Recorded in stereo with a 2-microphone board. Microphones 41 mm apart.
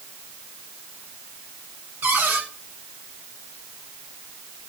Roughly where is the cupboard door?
Right.